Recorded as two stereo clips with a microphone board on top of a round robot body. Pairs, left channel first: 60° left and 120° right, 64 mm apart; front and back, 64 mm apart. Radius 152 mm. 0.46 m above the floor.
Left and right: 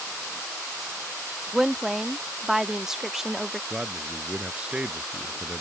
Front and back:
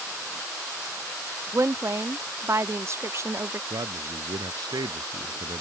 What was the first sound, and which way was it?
A woman speaking, 160° left.